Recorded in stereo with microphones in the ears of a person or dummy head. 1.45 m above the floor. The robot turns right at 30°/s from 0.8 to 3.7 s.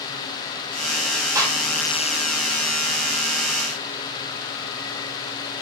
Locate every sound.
1.4 s a gunshot: 15° right (ahead or behind), 1.3 m; by 1.6 s 25° right (ahead or behind), 1.3 m